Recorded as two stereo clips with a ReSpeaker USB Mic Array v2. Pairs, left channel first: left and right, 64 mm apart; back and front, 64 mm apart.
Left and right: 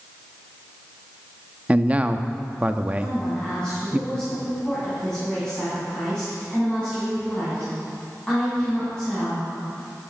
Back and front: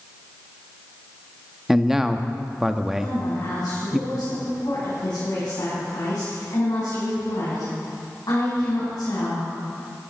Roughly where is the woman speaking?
Behind.